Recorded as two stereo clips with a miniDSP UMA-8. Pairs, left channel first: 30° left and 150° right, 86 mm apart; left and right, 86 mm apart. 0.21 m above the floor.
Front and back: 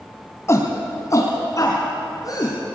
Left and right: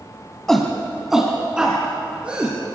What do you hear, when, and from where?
0.5 s a shout: 10° left, 1.6 m; by 2.5 s 15° right, 3.5 m